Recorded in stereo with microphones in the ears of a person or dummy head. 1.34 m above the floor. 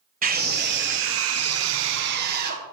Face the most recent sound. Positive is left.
turn(degrees=-45)  # may be behind; listen again after turning